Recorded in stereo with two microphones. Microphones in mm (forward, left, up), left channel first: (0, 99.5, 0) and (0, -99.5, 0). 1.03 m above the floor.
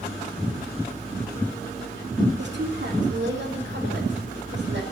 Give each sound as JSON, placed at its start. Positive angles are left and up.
{"t": 2.4, "sound": "a woman speaking", "side_deg": -75, "distance_m": 2.5}